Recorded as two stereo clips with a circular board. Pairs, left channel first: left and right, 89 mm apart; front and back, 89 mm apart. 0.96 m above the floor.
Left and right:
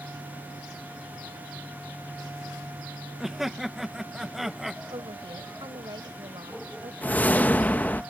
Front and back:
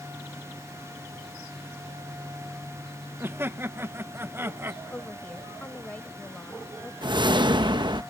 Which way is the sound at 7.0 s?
160° left.